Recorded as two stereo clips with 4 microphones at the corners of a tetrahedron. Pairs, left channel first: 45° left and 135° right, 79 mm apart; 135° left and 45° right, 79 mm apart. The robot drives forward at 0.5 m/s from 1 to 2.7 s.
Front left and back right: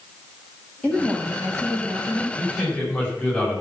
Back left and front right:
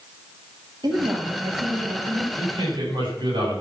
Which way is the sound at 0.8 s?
25° right.